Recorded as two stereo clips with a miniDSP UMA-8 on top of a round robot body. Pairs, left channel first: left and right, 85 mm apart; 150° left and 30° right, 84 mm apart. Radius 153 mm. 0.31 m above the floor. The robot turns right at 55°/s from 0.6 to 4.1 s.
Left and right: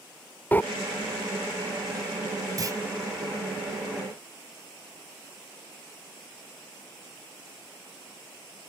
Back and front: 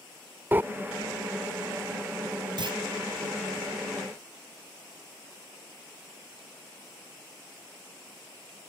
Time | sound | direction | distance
0.5 | breathing | 30° left | ?
2.6 | a clunk | 50° right | ?